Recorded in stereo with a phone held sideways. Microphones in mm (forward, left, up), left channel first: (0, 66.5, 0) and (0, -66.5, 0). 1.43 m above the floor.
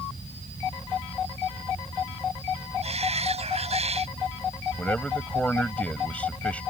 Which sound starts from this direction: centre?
A man speaking, at 4.8 s.